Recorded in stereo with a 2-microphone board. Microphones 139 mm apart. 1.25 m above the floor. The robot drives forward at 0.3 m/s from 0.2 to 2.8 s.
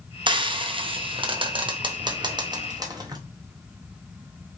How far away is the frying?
About 0.6 m.